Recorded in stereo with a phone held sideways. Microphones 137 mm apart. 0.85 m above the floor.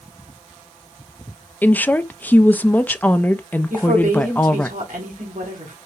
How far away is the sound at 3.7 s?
About 2.5 m.